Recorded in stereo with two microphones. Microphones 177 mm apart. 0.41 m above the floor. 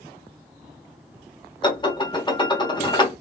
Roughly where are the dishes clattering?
Left.